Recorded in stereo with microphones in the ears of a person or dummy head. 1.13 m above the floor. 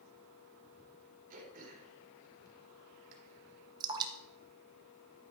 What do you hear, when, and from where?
1.3 s throat clearing: 50° right (ahead or behind), 3.5 m
3.8 s dripping: 25° right (ahead or behind), 1.2 m